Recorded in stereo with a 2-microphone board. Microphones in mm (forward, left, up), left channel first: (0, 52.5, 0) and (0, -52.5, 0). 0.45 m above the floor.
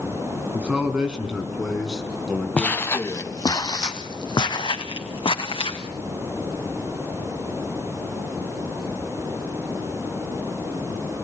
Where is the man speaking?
10° right (ahead or behind), 4.5 m; by 3.6 s 10° left (ahead or behind), 5 m.